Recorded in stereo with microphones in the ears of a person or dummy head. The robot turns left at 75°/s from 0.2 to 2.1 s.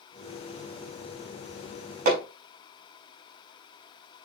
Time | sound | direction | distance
2.0 | hammering | 55° right (ahead or behind) | 4 m